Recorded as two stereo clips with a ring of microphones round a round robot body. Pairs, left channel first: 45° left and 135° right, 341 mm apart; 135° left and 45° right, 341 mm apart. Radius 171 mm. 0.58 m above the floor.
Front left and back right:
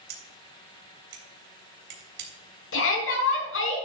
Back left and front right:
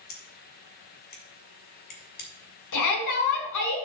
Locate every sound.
0.1 s scissors: 165° right, 3.5 m
2.7 s a shout: 100° left, 5 m